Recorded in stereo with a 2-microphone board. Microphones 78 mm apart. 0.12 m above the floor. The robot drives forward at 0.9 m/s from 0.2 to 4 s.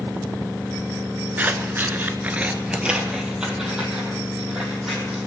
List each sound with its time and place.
1.4 s scissors: 20° right (ahead or behind), 0.7 m; by 5.3 s 5° right (ahead or behind), 2 m